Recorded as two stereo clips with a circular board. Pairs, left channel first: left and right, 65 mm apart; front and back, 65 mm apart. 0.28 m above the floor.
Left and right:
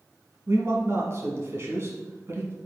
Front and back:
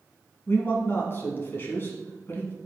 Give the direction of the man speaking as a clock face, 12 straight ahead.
2 o'clock.